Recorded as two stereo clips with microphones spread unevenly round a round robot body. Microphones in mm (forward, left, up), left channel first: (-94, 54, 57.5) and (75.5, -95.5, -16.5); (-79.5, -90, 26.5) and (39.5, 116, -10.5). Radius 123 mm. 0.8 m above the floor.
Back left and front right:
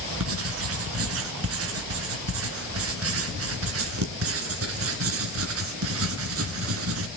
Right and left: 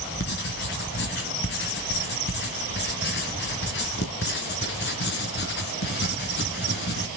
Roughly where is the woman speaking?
No woman speaking in this recording.